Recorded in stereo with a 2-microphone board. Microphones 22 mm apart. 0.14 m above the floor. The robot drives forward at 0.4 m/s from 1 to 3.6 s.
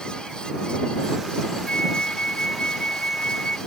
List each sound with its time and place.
1.7 s a flute: 60° left (ahead or behind)